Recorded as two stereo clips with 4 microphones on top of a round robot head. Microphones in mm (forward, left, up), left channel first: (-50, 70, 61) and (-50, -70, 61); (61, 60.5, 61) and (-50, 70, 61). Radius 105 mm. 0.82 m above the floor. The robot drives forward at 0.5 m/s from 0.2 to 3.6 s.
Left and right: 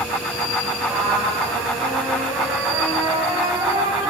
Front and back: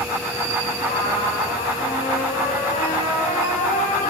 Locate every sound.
0.8 s a trumpet: 15° right, 6.5 m